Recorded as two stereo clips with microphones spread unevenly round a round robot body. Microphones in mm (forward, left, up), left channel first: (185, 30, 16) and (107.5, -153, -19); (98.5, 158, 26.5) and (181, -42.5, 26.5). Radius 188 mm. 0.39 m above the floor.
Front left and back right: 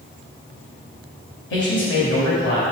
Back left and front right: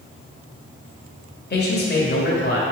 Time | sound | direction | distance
1.5 | a man speaking | 95° left | 1.6 m